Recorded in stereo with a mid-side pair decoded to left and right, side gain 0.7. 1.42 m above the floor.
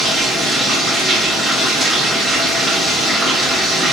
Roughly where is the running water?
Ahead.